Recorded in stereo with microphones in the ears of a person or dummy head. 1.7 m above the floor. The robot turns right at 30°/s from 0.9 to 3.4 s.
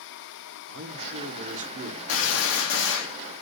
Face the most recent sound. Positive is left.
turn(degrees=115)